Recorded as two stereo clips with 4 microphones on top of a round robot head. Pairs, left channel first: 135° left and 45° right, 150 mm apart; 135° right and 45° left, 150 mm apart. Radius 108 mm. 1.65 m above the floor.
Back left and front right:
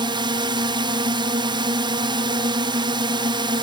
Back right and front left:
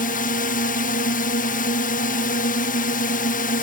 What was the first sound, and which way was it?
A drone, 105° right.